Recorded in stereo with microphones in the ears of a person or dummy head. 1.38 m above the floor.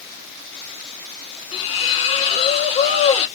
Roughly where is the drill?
No drill in this recording.